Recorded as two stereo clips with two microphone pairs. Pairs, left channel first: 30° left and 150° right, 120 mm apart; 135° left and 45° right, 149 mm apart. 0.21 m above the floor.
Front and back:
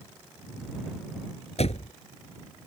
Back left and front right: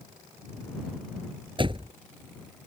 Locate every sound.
1.6 s a door slam: 10° left